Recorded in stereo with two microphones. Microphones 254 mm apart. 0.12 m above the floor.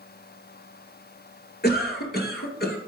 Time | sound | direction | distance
1.6 | a cough | 40° left (ahead or behind) | 1.8 m